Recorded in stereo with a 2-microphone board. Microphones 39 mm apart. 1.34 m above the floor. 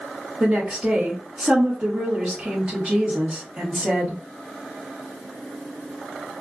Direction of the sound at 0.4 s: 35° right (ahead or behind).